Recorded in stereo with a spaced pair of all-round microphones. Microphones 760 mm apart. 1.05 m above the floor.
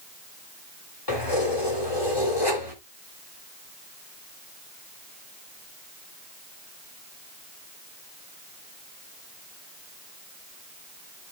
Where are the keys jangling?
30° left (ahead or behind), 3 m.